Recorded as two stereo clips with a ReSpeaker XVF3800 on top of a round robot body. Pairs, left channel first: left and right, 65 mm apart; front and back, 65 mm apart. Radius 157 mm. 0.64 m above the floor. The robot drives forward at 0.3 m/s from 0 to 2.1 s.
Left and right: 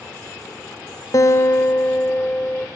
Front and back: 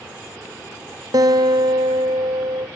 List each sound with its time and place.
1.1 s a guitar: 140° left, 0.5 m; by 2.7 s 155° left, 0.8 m